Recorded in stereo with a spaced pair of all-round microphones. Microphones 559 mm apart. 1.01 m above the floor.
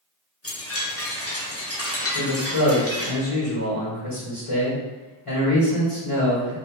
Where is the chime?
25° left (ahead or behind), 0.5 m.